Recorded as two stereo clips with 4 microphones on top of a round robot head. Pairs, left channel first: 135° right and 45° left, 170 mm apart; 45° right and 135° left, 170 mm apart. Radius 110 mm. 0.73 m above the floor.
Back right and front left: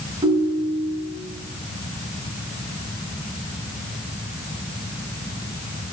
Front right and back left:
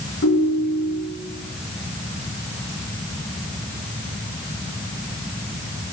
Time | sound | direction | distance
0.2 | a ringtone | 25° right | 3.5 m